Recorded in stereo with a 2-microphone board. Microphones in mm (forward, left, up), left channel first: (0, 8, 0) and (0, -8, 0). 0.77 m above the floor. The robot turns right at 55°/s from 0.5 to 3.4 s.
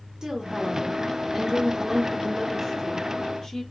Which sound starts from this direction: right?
A woman speaking, at 0.2 s.